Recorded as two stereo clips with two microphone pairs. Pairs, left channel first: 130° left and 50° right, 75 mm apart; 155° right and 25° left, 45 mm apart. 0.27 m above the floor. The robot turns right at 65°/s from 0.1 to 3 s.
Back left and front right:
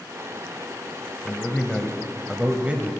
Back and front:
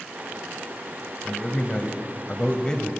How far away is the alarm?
I don't hear an alarm.